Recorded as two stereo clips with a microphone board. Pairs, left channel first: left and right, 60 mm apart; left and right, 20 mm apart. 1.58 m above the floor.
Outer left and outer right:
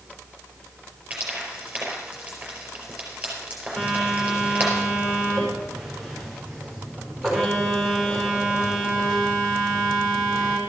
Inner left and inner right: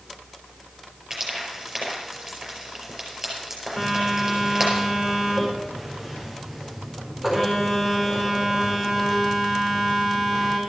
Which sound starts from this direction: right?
Frying, at 1.1 s.